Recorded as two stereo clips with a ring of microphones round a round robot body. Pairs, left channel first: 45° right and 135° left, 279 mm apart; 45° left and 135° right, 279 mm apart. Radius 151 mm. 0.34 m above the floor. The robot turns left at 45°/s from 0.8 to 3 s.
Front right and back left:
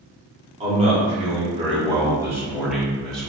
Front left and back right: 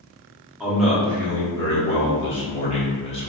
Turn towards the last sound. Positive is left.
turn(degrees=35)